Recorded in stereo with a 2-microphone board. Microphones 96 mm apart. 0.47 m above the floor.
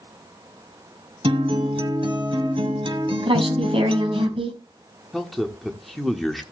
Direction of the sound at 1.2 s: 70° right (ahead or behind).